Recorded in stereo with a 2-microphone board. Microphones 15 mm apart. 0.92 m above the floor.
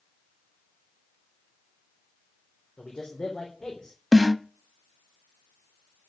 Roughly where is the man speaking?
Left.